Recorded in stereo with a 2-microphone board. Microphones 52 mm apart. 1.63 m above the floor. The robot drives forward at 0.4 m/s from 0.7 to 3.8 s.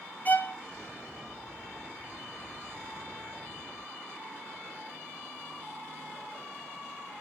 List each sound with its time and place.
0.2 s a violin: 35° left (ahead or behind), 0.8 m